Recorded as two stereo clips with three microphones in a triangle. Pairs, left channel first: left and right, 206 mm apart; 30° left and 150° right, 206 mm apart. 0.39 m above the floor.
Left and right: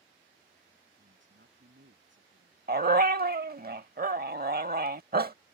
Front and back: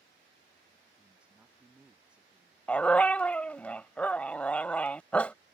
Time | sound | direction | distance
1.0 | a man speaking | 65° right | ?
2.7 | a dog barking | 55° right | ?